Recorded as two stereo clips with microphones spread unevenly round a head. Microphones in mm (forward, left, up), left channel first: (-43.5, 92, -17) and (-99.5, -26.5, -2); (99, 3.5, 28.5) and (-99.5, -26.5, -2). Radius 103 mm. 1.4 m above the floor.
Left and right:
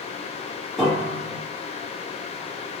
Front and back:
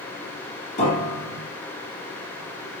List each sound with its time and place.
0.8 s a piano: 25° right, 1.2 m